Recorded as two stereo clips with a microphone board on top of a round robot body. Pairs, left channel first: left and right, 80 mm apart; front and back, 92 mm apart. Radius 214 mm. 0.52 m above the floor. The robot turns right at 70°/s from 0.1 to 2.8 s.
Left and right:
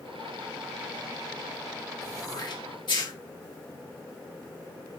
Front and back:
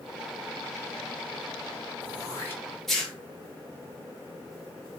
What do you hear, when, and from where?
2.0 s throat clearing: 30° left, 3.5 m; by 3.1 s 85° left, 3.5 m